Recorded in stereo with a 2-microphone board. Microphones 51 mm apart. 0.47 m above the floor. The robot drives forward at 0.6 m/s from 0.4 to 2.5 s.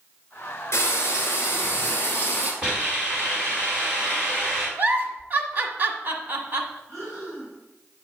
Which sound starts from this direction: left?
Frying, at 0.7 s.